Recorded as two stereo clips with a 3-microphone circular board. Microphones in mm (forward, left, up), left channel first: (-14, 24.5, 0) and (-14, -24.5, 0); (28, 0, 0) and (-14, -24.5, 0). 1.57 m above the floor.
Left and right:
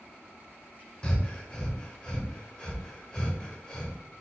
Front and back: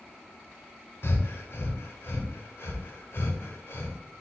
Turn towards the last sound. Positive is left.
turn(degrees=20)